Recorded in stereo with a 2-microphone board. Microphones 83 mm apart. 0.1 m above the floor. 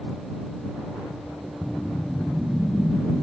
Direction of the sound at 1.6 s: 10° left (ahead or behind).